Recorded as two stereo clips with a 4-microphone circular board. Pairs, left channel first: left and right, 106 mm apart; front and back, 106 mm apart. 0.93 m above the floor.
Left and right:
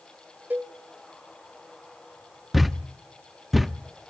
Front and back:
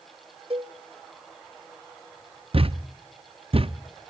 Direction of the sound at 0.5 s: 160° right.